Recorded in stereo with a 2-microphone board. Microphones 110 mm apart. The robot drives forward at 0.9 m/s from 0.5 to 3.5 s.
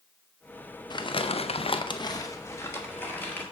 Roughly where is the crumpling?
Left.